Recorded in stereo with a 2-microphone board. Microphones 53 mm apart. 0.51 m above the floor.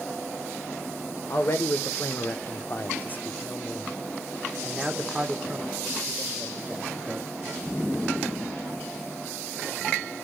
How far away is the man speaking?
About 1.5 m.